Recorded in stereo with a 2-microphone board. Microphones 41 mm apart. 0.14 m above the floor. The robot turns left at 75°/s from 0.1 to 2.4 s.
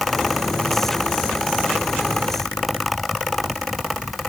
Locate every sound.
Only background noise.